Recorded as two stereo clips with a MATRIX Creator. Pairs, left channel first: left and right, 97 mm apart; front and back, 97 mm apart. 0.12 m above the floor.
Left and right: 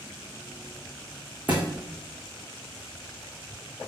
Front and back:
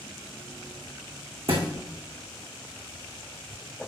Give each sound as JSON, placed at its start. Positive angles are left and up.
{"t": 1.5, "sound": "a thud", "azimuth_deg": -165, "distance_m": 2.5}